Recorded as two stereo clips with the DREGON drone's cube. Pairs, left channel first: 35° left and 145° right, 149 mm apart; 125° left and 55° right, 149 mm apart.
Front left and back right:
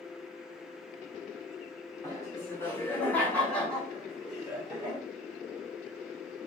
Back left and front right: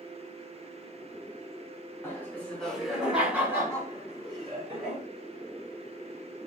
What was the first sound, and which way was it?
Laughter, 70° left.